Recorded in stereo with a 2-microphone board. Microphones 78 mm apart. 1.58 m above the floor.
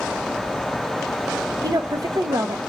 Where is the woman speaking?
55° right (ahead or behind), 1.0 m.